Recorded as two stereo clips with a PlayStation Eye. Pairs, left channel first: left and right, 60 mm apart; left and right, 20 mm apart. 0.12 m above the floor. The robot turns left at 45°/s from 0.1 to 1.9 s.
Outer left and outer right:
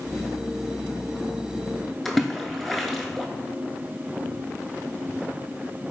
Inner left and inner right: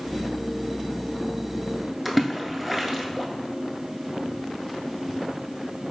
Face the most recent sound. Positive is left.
turn(degrees=0)  # may be behind; listen again after turning